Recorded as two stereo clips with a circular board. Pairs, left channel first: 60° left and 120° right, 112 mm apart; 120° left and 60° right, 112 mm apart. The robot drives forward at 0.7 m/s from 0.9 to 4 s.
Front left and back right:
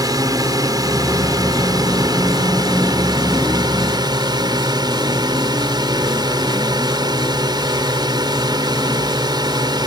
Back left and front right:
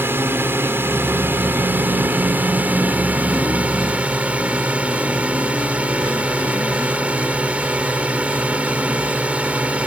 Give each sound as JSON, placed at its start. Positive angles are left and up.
{"t": 0.0, "sound": "a drone", "azimuth_deg": -115}